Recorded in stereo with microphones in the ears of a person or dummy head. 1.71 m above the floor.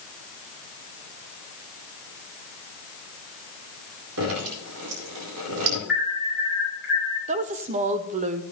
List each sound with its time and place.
4.2 s dripping: 75° right (ahead or behind), 4 m
5.9 s an alarm: 5° right (ahead or behind), 5.5 m
7.3 s a woman speaking: 35° right (ahead or behind), 0.5 m